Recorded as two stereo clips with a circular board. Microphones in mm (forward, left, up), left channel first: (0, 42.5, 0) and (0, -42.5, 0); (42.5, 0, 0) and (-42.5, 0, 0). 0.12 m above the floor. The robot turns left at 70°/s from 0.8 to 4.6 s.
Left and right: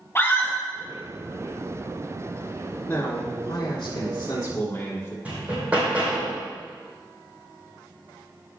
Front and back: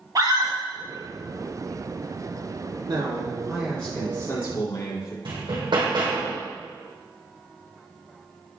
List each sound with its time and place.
0.1 s a scream: 145° left, 3 m
2.9 s a man speaking: 150° left, 3.5 m; by 5.2 s 30° left, 3.5 m
5.2 s hammering: 165° right, 3 m